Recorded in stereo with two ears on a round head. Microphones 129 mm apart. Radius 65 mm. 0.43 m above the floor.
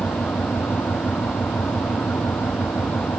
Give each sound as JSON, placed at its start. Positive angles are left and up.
{"t": 0.0, "sound": "an engine running", "side_deg": 10}